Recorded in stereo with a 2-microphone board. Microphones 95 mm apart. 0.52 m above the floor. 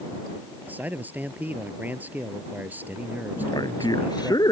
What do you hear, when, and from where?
0.7 s a man speaking: 20° right (ahead or behind)
3.4 s a man speaking: 45° left (ahead or behind)